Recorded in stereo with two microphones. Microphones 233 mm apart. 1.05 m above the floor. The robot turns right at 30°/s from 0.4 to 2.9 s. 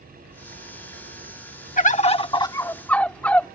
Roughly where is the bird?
Behind left.